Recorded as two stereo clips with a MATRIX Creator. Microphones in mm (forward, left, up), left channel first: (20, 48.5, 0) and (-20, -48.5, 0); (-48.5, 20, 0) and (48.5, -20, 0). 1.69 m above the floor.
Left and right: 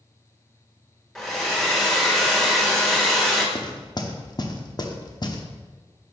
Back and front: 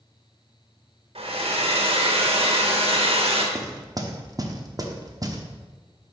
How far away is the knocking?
About 0.8 m.